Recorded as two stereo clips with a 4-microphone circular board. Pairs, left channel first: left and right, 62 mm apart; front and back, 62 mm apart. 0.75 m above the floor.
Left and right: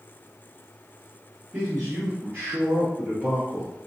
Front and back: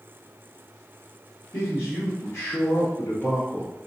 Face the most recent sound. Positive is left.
turn(degrees=-20)